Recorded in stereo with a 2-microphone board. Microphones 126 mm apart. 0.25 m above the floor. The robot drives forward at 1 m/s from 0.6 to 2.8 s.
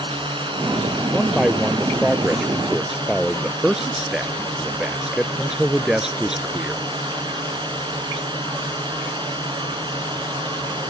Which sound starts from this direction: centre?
A man speaking, at 1.1 s.